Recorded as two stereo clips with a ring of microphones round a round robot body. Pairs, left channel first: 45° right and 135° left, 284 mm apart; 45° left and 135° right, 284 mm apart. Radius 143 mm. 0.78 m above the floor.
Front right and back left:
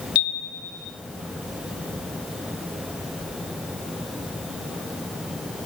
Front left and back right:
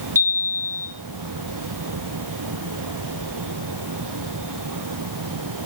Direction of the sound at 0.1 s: 60° right.